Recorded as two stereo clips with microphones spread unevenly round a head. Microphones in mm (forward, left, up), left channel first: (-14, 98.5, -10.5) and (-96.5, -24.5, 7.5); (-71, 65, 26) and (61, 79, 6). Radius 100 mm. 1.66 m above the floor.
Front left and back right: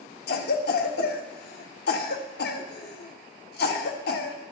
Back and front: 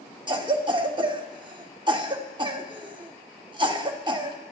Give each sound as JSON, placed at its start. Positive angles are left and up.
{"t": 0.3, "sound": "a cough", "azimuth_deg": 60, "distance_m": 1.3}